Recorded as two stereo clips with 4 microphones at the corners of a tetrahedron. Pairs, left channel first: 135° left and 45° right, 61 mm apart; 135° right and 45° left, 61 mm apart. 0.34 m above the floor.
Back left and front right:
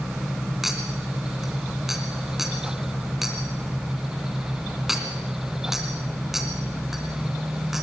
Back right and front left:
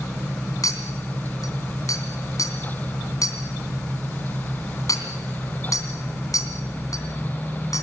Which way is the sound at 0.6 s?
130° right.